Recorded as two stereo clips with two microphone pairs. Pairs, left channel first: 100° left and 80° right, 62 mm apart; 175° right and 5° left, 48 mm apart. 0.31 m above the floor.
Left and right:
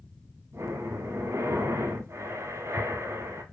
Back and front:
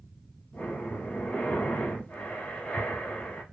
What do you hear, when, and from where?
0.5 s breathing: 115° right, 0.7 m